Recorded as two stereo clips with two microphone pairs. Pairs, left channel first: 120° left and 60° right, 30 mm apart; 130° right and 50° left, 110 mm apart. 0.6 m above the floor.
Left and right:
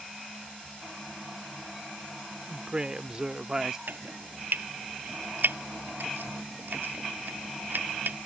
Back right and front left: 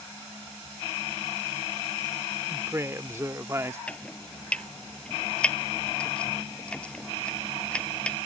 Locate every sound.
2.5 s a woman speaking: 10° right; by 3.8 s straight ahead
3.9 s chopping: 50° right